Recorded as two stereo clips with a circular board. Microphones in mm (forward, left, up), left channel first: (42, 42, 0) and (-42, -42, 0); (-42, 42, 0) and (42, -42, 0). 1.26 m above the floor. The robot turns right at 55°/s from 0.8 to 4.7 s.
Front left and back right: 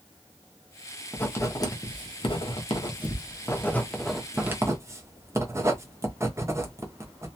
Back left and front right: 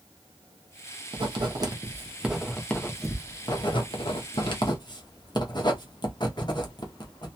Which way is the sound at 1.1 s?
30° right.